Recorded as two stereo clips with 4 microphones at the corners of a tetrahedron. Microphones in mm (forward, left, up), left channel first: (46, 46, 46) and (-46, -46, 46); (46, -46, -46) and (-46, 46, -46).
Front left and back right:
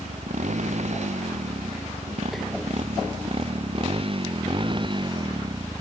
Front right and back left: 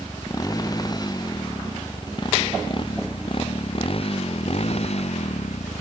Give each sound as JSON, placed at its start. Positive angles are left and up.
{"t": 0.0, "sound": "a motorcycle", "azimuth_deg": -110}